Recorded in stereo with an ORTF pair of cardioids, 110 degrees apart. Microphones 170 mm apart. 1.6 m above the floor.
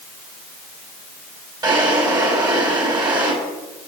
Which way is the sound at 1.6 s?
25° right.